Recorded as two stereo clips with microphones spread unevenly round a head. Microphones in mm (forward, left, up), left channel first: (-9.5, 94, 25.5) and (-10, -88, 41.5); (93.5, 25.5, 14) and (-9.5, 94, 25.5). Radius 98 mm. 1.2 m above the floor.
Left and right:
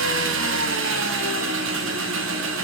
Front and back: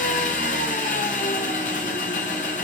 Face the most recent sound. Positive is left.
turn(degrees=-80)